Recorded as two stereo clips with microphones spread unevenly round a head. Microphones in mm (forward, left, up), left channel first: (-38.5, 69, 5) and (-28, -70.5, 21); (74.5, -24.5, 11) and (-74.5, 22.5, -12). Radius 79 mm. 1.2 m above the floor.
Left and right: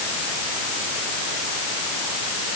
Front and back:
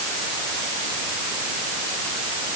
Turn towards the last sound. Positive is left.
No sound to turn to.